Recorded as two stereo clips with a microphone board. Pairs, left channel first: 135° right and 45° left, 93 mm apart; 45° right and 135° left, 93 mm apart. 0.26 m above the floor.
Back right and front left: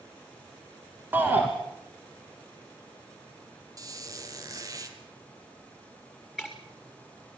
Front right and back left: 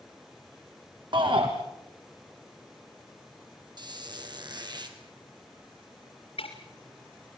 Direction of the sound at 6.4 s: 40° right.